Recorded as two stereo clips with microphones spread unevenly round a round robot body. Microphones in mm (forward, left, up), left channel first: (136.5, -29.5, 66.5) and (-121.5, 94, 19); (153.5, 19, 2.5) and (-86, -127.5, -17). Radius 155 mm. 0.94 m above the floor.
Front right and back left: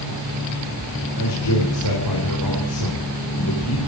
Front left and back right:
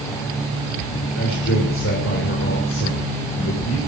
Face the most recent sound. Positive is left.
turn(degrees=-15)